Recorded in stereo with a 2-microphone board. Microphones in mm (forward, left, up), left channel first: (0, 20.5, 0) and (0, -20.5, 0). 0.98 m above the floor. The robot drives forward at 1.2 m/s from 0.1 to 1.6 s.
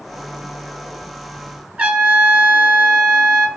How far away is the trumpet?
About 2.5 m.